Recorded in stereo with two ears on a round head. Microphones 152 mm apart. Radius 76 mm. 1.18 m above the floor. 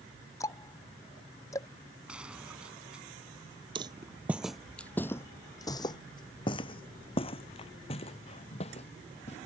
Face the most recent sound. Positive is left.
turn(degrees=40)  # may be behind; listen again after turning